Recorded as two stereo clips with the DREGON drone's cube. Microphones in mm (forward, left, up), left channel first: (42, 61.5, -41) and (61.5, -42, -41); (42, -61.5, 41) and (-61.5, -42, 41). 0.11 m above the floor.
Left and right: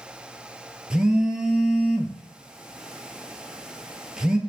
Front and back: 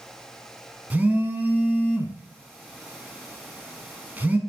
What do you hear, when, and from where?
0.9 s a phone buzzing: 145° right, 0.7 m